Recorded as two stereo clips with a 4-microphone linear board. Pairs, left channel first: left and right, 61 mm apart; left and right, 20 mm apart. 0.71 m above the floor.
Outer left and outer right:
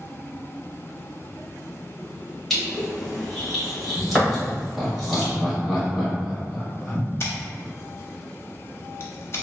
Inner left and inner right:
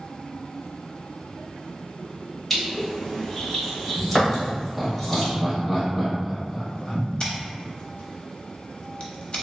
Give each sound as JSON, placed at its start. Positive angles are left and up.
{"t": 2.5, "sound": "crushing", "side_deg": 5, "distance_m": 1.6}
{"t": 4.4, "sound": "laughter", "side_deg": -5, "distance_m": 1.3}
{"t": 7.2, "sound": "scissors", "side_deg": 40, "distance_m": 0.8}